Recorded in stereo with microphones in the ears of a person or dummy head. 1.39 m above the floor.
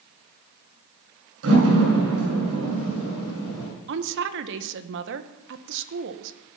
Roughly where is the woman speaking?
Right.